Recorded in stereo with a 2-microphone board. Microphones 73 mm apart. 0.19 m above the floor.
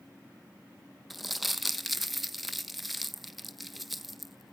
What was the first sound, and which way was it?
Crumpling, centre (ahead or behind).